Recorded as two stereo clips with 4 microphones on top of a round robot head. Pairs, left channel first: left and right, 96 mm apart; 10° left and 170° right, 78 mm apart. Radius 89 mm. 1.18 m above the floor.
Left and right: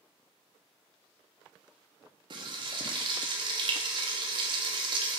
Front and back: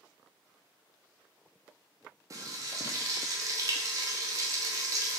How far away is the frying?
About 0.6 m.